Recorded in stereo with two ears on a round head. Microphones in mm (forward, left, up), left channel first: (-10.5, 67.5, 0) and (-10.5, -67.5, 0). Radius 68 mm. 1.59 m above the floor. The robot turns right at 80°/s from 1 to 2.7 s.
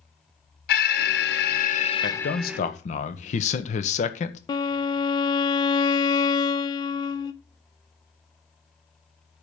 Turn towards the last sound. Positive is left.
turn(degrees=30)  # may be behind; listen again after turning